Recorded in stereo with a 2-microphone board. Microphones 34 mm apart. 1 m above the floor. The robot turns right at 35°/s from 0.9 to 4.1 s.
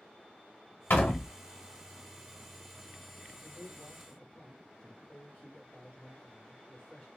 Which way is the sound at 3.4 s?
20° left (ahead or behind).